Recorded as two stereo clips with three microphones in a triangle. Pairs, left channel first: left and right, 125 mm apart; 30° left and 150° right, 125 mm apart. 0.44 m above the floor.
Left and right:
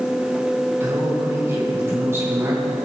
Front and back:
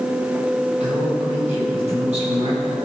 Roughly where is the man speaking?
Behind right.